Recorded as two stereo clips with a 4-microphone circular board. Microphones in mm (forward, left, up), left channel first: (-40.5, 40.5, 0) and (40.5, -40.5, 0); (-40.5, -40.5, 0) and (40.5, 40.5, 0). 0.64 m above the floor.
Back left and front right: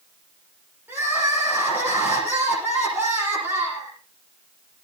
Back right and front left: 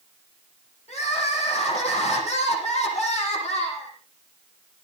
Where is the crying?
120° right, 8.5 m.